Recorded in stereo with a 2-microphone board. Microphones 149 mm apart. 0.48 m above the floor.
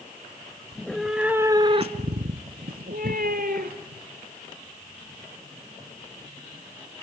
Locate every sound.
0.7 s a cat meowing: 10° left (ahead or behind), 1.3 m; by 4.0 s 75° right (ahead or behind), 2.5 m